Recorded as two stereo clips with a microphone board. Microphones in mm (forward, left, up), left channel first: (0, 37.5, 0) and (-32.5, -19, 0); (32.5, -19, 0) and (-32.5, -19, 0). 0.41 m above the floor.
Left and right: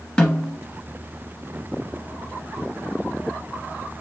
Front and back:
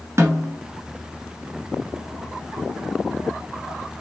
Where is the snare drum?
135° left, 1.1 m.